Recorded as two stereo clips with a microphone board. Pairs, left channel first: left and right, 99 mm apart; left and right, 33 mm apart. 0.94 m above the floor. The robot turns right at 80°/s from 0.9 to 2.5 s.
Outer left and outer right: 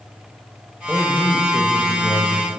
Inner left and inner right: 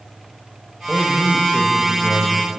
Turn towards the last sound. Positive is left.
turn(degrees=110)